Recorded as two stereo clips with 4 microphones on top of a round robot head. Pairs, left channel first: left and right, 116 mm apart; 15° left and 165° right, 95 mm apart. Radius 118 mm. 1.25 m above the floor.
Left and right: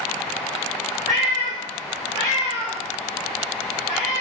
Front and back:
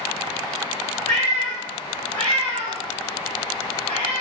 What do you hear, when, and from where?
1.1 s a cat meowing: 125° right, 0.5 m